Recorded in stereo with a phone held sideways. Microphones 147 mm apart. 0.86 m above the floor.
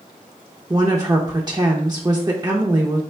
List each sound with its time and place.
0.7 s a woman speaking: 25° right (ahead or behind), 0.5 m